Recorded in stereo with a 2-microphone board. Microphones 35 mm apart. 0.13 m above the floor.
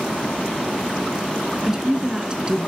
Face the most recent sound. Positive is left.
turn(degrees=-25)  # may be behind; listen again after turning